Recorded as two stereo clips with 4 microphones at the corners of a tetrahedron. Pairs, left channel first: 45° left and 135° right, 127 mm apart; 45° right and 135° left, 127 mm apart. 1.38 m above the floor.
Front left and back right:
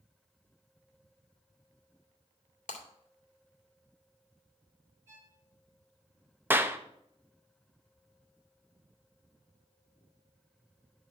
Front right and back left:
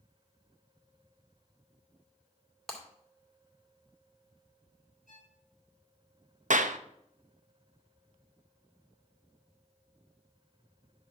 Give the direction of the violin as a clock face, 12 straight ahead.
2 o'clock.